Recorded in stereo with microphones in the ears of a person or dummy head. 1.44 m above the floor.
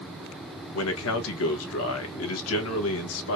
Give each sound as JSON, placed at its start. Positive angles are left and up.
{"t": 0.7, "sound": "a man speaking", "side_deg": 80, "distance_m": 1.2}